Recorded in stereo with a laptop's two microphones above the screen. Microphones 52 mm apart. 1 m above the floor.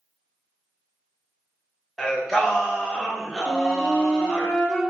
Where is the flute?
15° left (ahead or behind), 0.9 m.